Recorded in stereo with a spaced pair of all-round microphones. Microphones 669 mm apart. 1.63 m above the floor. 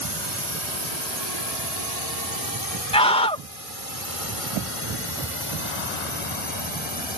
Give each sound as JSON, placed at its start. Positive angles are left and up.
{"t": 0.0, "sound": "a drone", "side_deg": -75}
{"t": 2.9, "sound": "a scream", "side_deg": 10}